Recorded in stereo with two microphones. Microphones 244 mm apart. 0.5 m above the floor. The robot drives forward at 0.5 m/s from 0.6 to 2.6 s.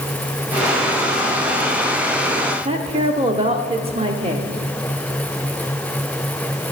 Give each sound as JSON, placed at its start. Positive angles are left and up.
{"t": 2.6, "sound": "a woman speaking", "side_deg": -25, "distance_m": 0.8}